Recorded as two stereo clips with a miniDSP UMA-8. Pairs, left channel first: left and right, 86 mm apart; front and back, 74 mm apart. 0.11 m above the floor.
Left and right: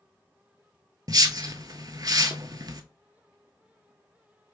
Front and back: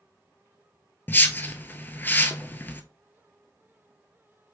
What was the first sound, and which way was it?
A whoosh, 60° right.